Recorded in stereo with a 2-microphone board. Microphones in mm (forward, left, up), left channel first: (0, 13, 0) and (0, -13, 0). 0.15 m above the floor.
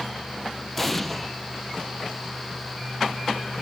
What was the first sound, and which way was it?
An explosion, 5° left (ahead or behind).